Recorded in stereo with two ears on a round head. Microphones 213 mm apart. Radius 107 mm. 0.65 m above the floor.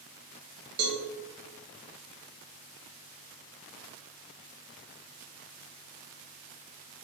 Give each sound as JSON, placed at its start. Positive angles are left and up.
{"t": 0.8, "sound": "a cowbell", "side_deg": -65, "distance_m": 3.0}